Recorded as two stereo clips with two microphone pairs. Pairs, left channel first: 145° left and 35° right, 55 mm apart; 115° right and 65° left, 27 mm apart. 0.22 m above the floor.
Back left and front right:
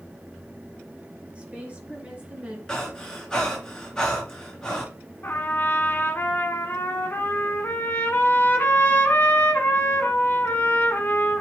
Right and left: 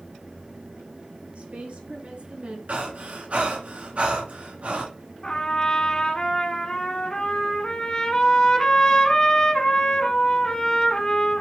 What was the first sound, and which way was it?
A woman speaking, 30° left.